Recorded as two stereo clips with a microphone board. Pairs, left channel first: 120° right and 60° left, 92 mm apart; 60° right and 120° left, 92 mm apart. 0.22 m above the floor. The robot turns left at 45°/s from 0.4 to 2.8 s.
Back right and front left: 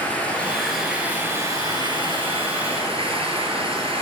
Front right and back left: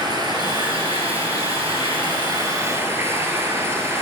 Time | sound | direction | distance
0.0 | running water | 165° left | 2.5 m